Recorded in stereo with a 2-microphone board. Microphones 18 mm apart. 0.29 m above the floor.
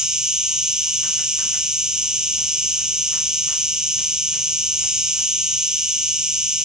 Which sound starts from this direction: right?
An insect, at 0.0 s.